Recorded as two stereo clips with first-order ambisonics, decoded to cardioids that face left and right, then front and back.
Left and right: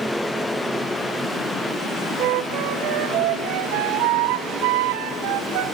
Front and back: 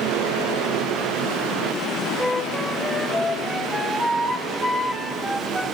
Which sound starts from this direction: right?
A flute, at 2.2 s.